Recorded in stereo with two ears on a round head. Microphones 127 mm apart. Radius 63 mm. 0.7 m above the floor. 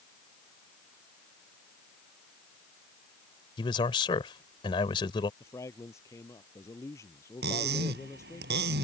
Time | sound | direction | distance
3.6 | a man speaking | 35° left (ahead or behind) | ?
5.4 | a man speaking | 20° left (ahead or behind) | ?
7.4 | cutlery clinking | 90° right | ?